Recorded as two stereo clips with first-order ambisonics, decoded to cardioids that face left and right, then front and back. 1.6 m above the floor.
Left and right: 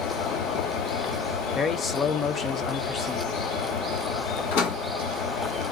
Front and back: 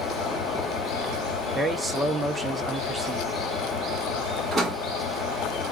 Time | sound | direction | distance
0.0 | an engine running | 40° left | 2.5 m
1.6 | a man speaking | 110° left | 0.5 m
4.5 | a door slam | 100° left | 1.7 m